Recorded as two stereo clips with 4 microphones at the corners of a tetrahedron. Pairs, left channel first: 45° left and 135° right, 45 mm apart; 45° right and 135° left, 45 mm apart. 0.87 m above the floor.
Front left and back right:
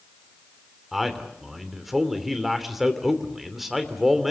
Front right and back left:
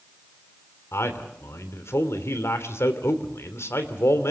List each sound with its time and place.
0.9 s a man speaking: 50° right, 3 m